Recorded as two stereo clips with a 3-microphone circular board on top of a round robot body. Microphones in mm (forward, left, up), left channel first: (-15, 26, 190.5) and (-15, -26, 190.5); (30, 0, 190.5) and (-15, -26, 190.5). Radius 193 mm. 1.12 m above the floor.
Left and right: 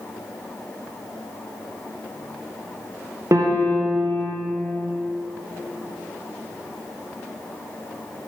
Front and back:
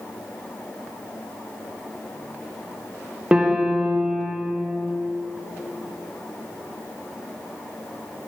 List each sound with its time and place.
3.3 s a piano: 80° right, 1.4 m